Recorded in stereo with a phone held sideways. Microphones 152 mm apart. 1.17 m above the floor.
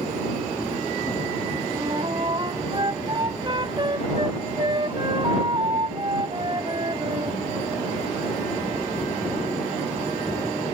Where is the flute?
30° right (ahead or behind).